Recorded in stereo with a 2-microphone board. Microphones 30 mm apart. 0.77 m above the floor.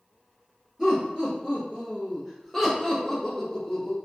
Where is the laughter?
5° right (ahead or behind), 1.2 m; by 4.0 s 15° left (ahead or behind), 0.9 m.